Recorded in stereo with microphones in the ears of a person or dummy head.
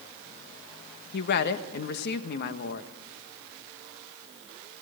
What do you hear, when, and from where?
1.1 s a woman speaking: 55° left (ahead or behind), 1.2 m